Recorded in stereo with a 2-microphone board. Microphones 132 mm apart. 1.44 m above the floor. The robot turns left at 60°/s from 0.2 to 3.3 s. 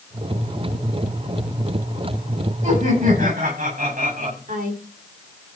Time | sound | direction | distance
2.6 | laughter | 55° right | 9.5 m
4.5 | a woman speaking | 85° right | 4 m